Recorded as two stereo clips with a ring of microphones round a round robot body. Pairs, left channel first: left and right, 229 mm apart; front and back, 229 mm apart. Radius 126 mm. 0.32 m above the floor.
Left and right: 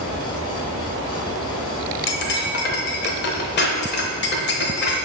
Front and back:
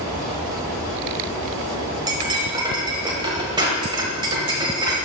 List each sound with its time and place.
2.1 s cutlery clinking: 110° left, 1.0 m